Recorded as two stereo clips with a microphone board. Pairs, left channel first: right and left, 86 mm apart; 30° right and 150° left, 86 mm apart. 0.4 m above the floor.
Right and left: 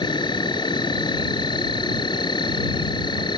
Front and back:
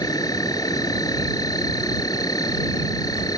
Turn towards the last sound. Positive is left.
turn(degrees=-70)